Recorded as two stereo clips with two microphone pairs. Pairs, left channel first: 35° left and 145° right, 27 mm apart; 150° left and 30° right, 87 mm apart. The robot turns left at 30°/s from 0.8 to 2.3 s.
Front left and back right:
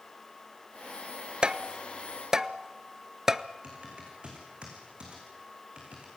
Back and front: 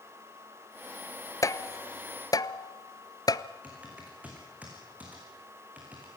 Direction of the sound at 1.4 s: Straight behind.